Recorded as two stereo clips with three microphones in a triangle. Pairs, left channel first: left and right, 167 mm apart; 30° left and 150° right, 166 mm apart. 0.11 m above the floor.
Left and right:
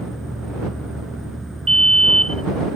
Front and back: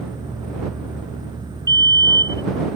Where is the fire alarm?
40° right.